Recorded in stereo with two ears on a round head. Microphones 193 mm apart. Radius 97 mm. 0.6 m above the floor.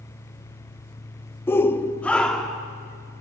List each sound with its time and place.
1.5 s a shout: 10° left (ahead or behind), 0.6 m; by 2.7 s centre (ahead or behind), 1.2 m